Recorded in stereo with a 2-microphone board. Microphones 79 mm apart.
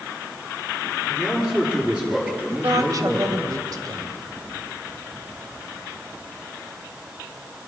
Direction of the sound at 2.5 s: 50° right (ahead or behind).